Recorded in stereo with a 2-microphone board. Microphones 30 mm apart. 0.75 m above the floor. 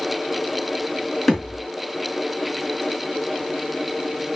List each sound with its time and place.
1.3 s a thud: centre (ahead or behind), 4 m